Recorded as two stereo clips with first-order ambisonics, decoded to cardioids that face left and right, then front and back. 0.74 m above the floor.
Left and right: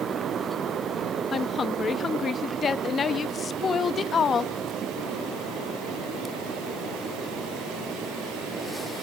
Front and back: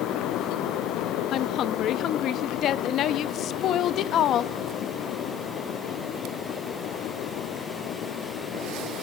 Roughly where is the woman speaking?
Ahead left.